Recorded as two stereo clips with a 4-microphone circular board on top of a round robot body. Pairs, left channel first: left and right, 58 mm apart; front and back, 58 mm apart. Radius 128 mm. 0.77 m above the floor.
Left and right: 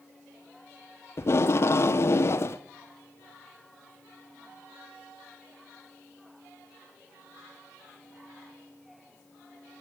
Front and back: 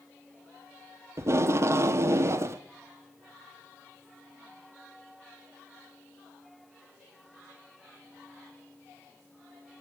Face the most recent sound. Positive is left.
turn(degrees=135)